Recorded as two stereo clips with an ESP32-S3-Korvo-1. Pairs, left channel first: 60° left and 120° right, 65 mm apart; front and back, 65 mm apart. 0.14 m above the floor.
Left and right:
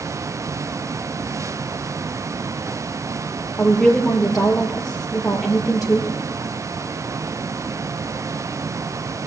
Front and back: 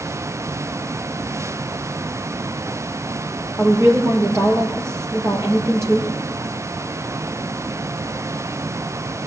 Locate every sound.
3.6 s a woman speaking: 145° left, 3.5 m